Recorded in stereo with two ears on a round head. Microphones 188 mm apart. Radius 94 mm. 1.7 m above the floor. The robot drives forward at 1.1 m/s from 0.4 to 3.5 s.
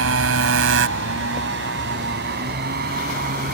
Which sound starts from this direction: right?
A motorcycle, at 0.0 s.